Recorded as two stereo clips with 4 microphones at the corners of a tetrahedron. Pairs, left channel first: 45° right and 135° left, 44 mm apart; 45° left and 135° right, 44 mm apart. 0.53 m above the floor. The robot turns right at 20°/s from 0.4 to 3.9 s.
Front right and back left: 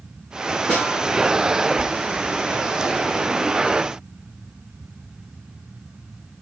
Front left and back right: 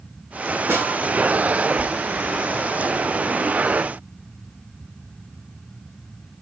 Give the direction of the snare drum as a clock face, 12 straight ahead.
4 o'clock.